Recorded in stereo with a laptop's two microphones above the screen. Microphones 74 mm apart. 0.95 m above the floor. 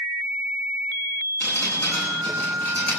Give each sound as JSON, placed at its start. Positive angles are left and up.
{"t": 1.4, "sound": "dripping", "side_deg": 20, "distance_m": 9.0}